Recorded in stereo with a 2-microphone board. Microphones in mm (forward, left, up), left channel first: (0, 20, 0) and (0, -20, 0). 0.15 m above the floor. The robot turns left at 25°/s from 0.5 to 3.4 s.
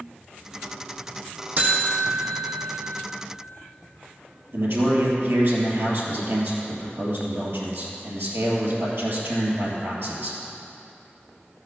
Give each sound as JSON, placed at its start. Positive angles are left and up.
{"t": 1.6, "sound": "a buzzer", "side_deg": -35, "distance_m": 2.5}
{"t": 4.5, "sound": "a man speaking", "side_deg": -65, "distance_m": 3.0}